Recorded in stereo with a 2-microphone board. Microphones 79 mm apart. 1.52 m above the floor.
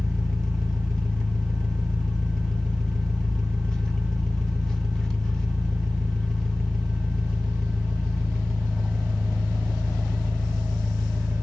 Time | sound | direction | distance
0.0 | an engine running | 10° left (ahead or behind) | 0.8 m